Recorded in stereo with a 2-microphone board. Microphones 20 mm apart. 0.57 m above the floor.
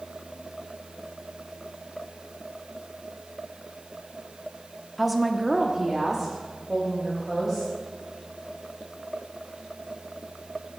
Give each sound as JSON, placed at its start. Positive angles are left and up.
{"t": 5.0, "sound": "a woman speaking", "side_deg": 0, "distance_m": 0.9}